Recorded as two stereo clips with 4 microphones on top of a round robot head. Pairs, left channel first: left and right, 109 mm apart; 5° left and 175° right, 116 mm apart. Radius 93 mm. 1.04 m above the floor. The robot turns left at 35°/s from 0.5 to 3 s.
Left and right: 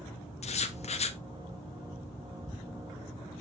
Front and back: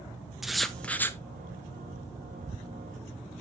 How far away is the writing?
About 1.1 m.